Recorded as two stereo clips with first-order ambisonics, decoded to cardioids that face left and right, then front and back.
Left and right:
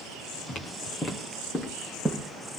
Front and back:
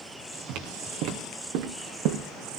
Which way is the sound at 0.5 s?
155° left.